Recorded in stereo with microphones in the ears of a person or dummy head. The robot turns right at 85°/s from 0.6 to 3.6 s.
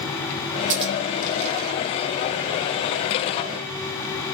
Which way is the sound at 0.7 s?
45° right (ahead or behind).